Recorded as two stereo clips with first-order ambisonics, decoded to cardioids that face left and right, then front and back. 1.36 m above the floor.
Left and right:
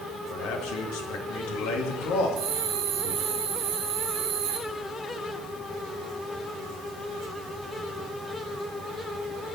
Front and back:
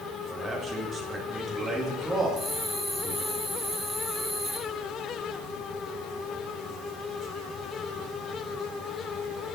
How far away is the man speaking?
About 2 m.